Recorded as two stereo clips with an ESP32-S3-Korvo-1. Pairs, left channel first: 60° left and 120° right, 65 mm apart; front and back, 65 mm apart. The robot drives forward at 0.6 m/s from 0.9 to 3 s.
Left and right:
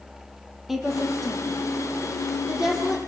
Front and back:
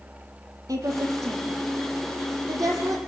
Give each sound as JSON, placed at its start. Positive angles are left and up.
{"t": 0.7, "sound": "a woman speaking", "azimuth_deg": 155, "distance_m": 5.5}